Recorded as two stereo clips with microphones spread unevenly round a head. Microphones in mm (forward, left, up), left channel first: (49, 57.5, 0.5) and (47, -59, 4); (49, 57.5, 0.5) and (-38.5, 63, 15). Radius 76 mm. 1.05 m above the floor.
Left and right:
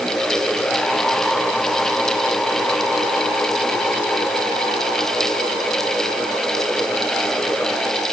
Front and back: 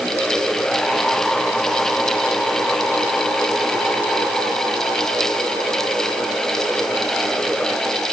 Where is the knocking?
I don't hear knocking.